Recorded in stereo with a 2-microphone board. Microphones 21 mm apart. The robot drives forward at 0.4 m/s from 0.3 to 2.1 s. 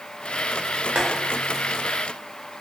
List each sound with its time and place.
0.9 s boiling: 65° right (ahead or behind), 0.5 m